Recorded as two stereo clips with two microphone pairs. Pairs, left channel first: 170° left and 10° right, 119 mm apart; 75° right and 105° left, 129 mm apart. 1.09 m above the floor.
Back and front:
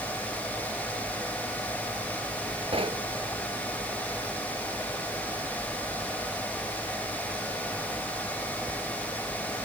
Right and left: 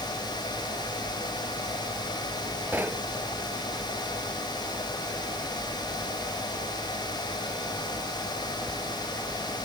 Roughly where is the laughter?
I don't hear laughter.